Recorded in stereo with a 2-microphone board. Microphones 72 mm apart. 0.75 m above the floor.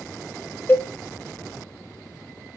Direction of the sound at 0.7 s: 25° left (ahead or behind).